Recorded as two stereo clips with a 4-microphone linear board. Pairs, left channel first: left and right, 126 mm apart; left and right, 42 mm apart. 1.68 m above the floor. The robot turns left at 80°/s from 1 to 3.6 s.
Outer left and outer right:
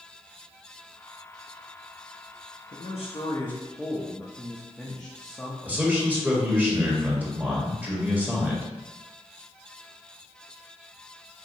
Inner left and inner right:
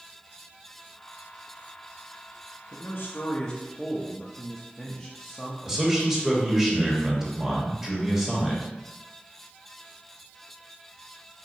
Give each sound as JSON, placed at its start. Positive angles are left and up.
{"t": 2.7, "sound": "a man speaking", "azimuth_deg": 75, "distance_m": 0.6}
{"t": 5.6, "sound": "a man speaking", "side_deg": -15, "distance_m": 1.4}